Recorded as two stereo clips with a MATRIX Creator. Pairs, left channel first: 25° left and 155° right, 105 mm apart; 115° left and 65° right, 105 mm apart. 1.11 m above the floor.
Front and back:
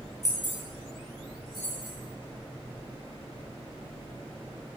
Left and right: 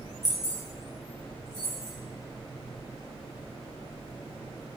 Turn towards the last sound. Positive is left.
turn(degrees=115)